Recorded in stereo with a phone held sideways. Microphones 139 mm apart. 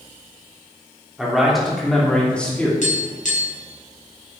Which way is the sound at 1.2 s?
Centre (ahead or behind).